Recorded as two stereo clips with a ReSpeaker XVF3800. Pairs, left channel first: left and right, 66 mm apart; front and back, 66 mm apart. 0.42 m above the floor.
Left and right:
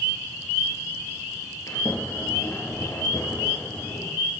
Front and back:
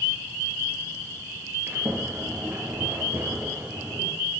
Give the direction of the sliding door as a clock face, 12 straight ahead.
8 o'clock.